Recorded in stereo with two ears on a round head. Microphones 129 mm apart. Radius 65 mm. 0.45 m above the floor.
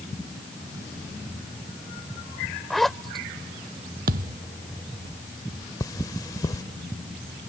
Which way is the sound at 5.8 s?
25° left (ahead or behind).